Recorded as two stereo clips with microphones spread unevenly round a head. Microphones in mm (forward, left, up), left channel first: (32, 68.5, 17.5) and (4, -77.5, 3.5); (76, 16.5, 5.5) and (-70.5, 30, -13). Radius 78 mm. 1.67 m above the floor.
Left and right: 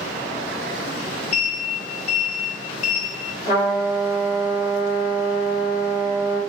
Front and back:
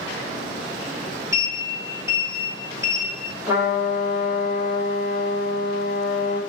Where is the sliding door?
105° left, 1.2 m.